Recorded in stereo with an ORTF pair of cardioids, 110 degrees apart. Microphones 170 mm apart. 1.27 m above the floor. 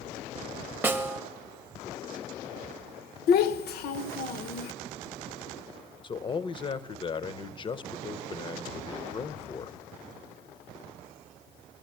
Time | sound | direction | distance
0.8 | a snare drum | 10° right | 0.7 m
3.3 | a child speaking | 70° left | 0.8 m
6.0 | a man speaking | 30° left | 0.6 m